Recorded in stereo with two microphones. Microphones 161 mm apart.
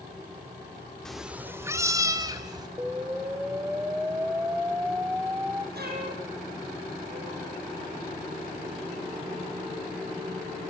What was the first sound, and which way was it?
A cat meowing, 5° left (ahead or behind).